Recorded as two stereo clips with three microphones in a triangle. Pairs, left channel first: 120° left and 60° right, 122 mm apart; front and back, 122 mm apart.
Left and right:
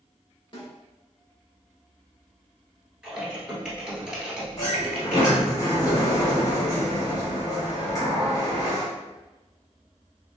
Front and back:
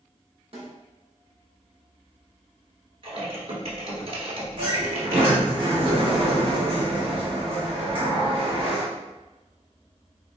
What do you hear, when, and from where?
0.5 s a snare drum: 160° left, 1.8 m
3.0 s typing on a keyboard: 145° right, 1.3 m
4.6 s a sliding door: 170° left, 1.4 m